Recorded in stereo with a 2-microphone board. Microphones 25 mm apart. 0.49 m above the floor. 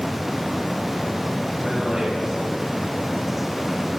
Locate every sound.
1.6 s a man speaking: 20° right (ahead or behind), 4 m; by 3.9 s 25° left (ahead or behind), 4.5 m